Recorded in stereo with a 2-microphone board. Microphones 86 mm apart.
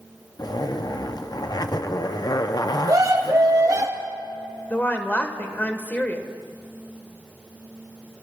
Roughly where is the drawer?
No drawer in this recording.